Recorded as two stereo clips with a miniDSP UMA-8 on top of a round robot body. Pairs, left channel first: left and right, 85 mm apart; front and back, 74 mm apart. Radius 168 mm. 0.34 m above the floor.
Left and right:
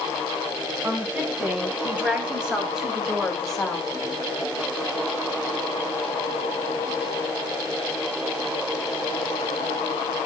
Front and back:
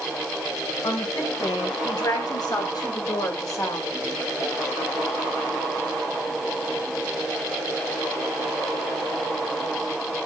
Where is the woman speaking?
25° right, 3.5 m; by 3.9 s 10° left, 2.0 m.